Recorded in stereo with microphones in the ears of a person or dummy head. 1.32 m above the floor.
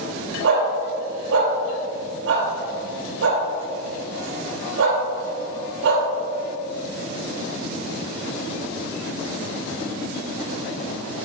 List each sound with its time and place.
0.4 s a dog barking: 70° right (ahead or behind), 2.5 m